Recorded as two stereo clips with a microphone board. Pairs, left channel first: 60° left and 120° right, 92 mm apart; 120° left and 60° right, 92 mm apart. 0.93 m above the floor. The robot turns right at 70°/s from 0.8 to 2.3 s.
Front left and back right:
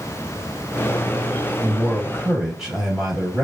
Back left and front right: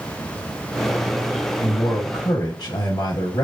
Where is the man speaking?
115° left, 1.1 m; by 3.4 s 165° left, 1.1 m.